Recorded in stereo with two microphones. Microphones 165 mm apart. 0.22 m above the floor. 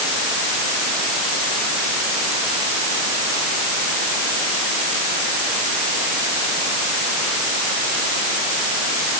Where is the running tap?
I don't hear a running tap.